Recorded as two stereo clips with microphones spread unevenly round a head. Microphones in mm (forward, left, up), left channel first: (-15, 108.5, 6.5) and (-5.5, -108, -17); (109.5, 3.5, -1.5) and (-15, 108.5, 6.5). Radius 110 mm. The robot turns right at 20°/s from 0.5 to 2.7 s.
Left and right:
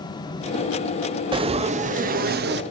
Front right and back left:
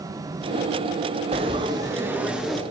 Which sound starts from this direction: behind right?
Frying, at 1.3 s.